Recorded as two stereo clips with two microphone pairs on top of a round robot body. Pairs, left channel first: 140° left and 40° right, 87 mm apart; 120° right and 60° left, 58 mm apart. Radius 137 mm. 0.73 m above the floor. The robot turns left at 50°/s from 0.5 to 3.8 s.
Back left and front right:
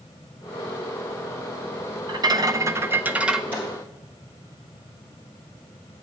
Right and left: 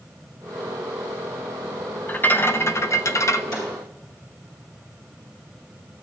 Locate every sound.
2.1 s a rattle: 65° right, 0.7 m; by 3.4 s 130° right, 0.7 m
3.5 s a snare drum: 110° right, 4 m; by 3.7 s 120° right, 4 m